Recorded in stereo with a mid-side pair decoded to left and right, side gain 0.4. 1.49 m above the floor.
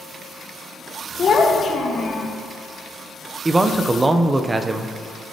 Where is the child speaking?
50° left, 1.4 m.